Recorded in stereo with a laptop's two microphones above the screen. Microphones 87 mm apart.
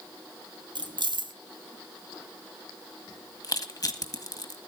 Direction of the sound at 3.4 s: 45° left (ahead or behind).